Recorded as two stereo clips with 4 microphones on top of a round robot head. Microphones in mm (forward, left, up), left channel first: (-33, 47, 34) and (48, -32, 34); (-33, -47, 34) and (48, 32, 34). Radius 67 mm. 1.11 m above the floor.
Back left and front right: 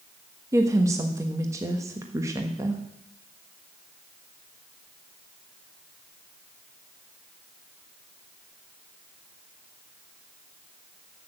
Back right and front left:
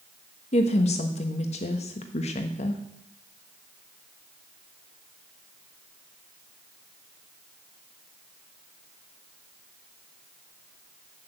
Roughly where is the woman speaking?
Right.